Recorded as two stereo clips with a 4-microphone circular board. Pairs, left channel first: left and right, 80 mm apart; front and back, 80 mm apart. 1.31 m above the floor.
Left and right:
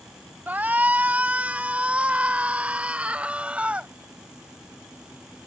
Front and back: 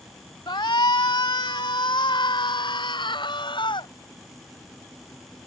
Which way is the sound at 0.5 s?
20° right.